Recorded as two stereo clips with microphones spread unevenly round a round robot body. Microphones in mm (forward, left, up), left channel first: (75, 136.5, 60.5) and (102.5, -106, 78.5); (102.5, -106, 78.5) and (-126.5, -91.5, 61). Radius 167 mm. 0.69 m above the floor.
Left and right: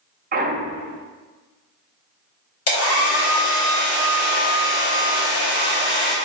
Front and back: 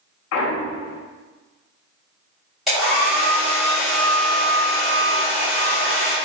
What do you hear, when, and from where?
0.3 s a clunk: 25° right, 0.5 m
2.7 s a hair dryer: 90° left, 1.2 m